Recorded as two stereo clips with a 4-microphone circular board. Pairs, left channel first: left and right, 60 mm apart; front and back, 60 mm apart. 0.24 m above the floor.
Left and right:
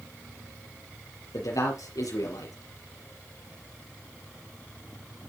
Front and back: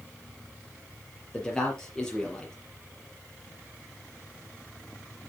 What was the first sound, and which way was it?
A man speaking, 80° left.